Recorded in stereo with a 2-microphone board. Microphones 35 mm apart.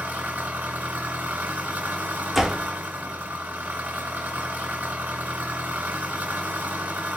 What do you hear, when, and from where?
0.0 s an engine running: 50° right (ahead or behind), 1.3 m
2.3 s a door slam: 10° right (ahead or behind), 0.5 m